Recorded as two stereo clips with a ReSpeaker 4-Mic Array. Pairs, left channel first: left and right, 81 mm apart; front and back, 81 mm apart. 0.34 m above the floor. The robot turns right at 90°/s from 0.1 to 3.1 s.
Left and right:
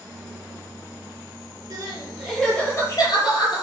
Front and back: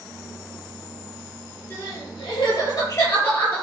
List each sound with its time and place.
1.7 s crying: 65° right, 6 m; by 3.6 s 60° left, 6 m